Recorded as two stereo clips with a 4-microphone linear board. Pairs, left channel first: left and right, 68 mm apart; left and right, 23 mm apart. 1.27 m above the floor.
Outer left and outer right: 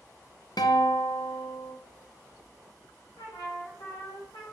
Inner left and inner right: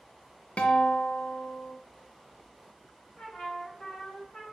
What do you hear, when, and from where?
0.6 s a guitar: 80° left, 0.7 m
3.2 s a trumpet: 75° left (ahead or behind), 1.4 m